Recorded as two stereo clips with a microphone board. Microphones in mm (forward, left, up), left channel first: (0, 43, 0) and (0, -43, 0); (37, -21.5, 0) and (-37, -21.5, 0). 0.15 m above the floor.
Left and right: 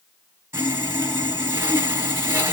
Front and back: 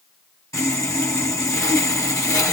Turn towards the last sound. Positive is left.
turn(degrees=-30)